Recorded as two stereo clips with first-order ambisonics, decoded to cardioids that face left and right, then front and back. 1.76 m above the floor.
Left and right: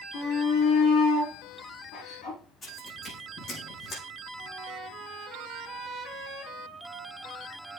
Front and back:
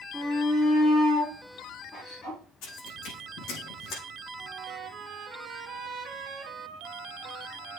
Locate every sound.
0.1 s a shout: 85° left, 4.5 m; by 2.4 s 60° left, 5 m
2.6 s footsteps: 30° left, 6 m; by 4.0 s 50° left, 5 m
4.4 s a trumpet: 160° right, 1.7 m